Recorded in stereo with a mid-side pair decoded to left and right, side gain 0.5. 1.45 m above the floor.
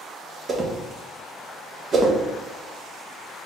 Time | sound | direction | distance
0.5 | a whoosh | 40° right | 1.0 m